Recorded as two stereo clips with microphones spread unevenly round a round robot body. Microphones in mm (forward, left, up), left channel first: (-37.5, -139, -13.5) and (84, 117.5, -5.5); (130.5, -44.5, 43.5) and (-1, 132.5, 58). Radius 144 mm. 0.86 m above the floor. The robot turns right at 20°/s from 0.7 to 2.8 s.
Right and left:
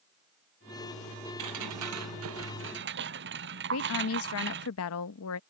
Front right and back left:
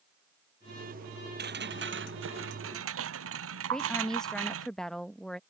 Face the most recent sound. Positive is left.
turn(degrees=-135)